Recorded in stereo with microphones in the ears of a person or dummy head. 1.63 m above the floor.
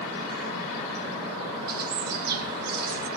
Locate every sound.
1.7 s a bird: 55° right (ahead or behind), 1.3 m